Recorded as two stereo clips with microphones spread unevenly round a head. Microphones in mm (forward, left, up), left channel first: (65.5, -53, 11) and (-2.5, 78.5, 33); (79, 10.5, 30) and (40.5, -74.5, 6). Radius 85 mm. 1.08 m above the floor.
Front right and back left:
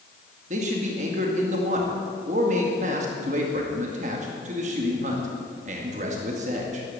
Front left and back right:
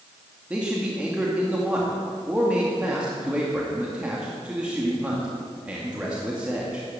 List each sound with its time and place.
0.5 s a man speaking: 165° left, 2 m